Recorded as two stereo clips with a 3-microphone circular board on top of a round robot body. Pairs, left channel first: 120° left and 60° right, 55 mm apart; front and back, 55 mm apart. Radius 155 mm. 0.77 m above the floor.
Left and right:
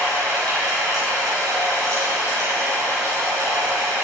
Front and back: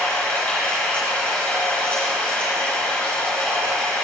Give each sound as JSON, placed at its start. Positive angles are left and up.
{"t": 0.0, "sound": "running water", "azimuth_deg": -65, "distance_m": 5.0}